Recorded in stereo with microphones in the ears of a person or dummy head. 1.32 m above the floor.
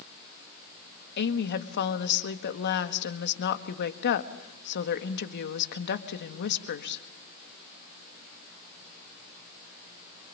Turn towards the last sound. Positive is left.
turn(degrees=60)  # may be behind; listen again after turning